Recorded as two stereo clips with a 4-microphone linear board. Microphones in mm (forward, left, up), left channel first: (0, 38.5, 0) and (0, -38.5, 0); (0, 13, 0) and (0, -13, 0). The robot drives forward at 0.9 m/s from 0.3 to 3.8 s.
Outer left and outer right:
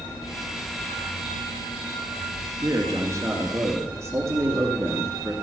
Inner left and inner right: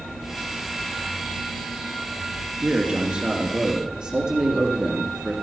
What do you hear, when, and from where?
2.6 s a man speaking: 40° right (ahead or behind), 2.0 m; by 5.3 s 35° right (ahead or behind), 2 m